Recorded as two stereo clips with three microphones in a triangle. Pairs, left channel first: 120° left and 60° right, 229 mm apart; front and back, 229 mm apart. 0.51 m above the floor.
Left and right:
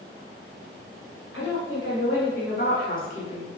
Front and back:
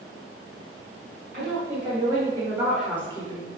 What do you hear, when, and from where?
1.3 s a woman speaking: 130° left, 2 m; by 3.5 s 55° left, 1.4 m